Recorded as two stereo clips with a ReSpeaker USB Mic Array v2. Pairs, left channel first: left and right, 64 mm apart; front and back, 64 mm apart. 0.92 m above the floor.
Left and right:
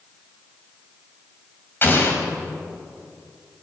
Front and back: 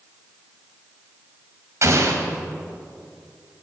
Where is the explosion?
145° left, 2.5 m.